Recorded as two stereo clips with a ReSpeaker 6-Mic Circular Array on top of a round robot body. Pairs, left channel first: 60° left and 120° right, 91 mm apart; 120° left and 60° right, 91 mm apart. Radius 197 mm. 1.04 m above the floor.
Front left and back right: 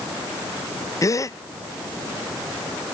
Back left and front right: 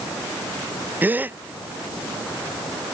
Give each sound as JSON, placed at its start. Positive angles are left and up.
{"t": 1.0, "sound": "a gasp", "azimuth_deg": 10}